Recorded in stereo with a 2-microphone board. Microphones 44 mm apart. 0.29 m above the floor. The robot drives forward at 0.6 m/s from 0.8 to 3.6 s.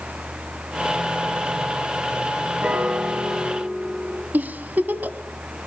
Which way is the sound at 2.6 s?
35° right (ahead or behind).